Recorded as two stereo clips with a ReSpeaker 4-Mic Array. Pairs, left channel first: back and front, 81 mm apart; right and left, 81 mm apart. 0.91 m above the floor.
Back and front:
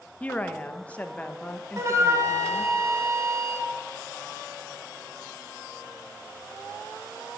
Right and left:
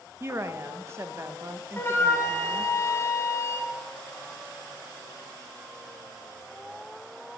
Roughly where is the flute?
Ahead right.